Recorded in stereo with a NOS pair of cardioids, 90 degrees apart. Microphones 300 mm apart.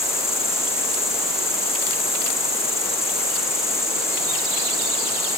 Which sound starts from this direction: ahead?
An insect, at 0.0 s.